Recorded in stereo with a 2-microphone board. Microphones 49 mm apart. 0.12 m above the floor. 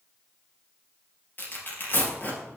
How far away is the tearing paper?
About 3.5 m.